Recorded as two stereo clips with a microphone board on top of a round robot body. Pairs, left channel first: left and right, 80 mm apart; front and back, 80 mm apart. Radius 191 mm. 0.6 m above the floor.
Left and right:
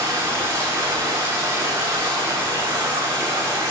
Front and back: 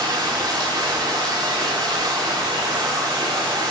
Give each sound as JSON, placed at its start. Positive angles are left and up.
{"t": 0.0, "sound": "running water", "azimuth_deg": -145, "distance_m": 4.0}